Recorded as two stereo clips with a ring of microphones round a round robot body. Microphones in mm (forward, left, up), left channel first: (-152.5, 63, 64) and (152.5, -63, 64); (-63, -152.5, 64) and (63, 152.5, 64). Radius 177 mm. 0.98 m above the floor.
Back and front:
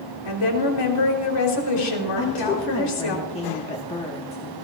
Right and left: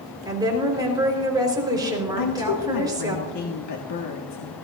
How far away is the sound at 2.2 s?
About 1.4 m.